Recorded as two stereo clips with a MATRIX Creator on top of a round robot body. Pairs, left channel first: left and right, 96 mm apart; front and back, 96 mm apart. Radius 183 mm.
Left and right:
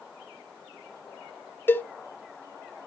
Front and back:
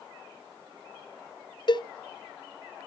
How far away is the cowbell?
About 0.7 m.